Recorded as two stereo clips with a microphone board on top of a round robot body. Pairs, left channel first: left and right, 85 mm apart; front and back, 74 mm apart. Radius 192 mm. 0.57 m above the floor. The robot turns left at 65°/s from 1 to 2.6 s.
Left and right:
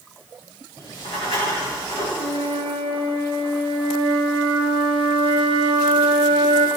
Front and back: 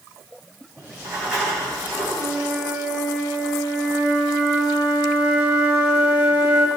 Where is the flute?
75° right, 1.2 m; by 6.7 s 105° right, 1.2 m.